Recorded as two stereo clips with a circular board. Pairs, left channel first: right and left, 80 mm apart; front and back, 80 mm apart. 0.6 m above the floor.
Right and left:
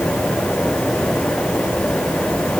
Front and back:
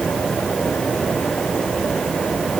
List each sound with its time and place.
Only background noise.